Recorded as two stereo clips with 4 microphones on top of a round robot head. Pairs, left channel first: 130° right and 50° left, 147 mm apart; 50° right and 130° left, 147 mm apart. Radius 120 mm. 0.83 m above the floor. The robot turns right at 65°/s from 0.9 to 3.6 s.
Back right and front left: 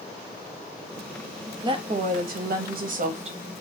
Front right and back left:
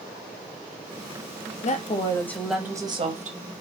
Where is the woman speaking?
10° right, 1.0 m; by 3.6 s 115° left, 1.0 m.